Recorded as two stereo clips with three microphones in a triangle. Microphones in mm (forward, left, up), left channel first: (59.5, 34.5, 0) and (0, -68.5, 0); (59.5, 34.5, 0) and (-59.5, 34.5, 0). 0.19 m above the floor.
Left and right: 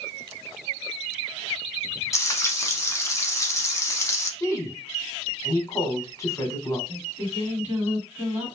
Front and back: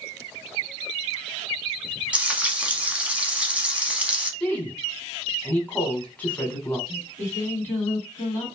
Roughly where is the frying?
Left.